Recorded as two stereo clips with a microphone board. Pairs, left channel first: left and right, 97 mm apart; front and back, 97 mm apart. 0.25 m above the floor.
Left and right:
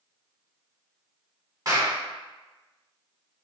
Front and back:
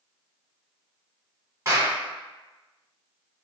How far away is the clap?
About 1.4 m.